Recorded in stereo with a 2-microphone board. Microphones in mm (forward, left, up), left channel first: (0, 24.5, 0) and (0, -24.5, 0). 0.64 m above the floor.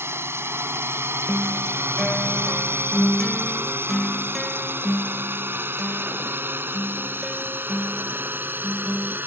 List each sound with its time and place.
0.0 s a drone: 65° right (ahead or behind); by 9.3 s 45° right (ahead or behind)
1.3 s a guitar: 5° left (ahead or behind)